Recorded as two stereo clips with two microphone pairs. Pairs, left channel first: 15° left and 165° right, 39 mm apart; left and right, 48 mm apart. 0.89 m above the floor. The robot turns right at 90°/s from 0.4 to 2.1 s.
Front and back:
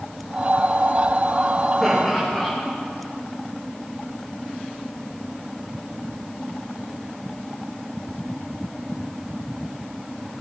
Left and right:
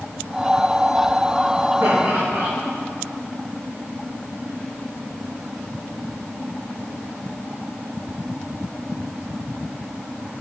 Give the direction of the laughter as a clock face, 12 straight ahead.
2 o'clock.